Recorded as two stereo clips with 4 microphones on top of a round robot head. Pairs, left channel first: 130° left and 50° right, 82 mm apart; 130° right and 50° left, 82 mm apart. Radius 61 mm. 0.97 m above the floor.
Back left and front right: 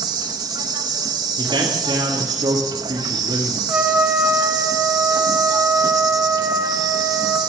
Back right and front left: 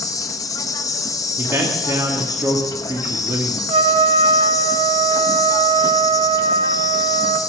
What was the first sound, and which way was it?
An insect, 85° right.